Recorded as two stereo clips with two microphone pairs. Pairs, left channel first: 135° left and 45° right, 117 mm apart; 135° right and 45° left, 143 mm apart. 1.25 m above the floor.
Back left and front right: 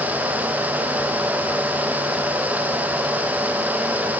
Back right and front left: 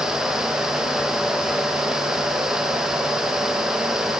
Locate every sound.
Only background noise.